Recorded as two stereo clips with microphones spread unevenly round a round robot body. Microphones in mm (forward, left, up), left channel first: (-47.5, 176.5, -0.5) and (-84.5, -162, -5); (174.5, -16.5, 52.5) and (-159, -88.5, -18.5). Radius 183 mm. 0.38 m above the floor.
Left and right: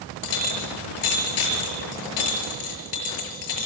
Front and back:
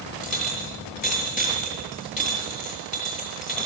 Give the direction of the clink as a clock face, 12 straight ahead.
9 o'clock.